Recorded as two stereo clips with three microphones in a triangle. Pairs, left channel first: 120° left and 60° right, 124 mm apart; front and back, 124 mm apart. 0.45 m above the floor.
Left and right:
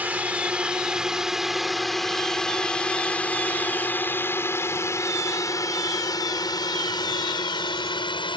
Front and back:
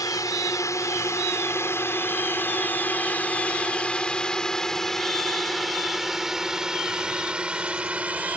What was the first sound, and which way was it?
A drone, 5° left.